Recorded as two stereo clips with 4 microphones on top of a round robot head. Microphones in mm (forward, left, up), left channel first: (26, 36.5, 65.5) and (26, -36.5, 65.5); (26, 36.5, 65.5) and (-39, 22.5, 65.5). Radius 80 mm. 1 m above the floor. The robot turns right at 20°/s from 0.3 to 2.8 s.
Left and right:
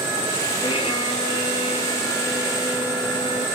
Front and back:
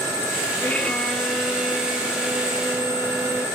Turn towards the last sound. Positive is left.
turn(degrees=125)